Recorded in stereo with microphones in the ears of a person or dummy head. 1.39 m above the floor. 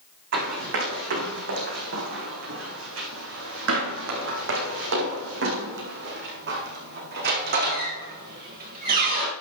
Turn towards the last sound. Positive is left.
turn(degrees=-45)  # may be behind; listen again after turning